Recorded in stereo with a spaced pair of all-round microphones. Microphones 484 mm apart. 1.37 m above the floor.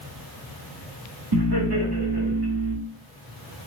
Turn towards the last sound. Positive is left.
turn(degrees=-50)  # may be behind; listen again after turning